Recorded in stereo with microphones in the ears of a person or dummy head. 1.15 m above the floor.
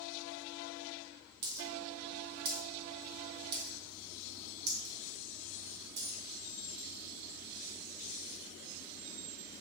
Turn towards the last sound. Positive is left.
turn(degrees=-55)  # may be behind; listen again after turning